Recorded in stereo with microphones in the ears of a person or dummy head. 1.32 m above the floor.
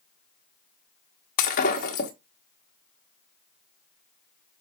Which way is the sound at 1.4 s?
45° left (ahead or behind).